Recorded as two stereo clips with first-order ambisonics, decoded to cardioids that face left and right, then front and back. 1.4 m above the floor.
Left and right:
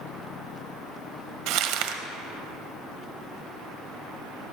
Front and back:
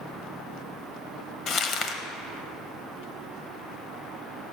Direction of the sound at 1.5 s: 60° right.